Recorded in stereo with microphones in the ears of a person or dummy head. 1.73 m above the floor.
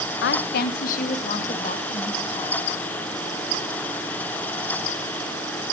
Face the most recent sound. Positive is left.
turn(degrees=30)  # may be behind; listen again after turning